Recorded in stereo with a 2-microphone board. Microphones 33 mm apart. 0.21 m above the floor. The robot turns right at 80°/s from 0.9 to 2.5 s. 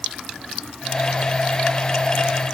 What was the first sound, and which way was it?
Only background noise.